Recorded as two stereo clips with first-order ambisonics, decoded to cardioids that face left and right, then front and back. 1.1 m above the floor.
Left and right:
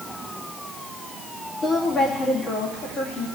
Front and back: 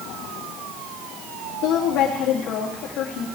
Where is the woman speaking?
20° left, 2.5 m.